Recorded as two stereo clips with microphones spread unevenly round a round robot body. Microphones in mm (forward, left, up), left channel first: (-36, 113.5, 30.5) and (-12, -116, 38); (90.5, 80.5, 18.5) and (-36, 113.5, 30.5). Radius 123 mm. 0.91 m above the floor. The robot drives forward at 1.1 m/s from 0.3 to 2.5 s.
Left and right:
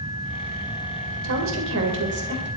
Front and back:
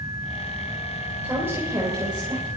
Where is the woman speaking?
110° right, 4 m; by 2.5 s 125° right, 4.5 m.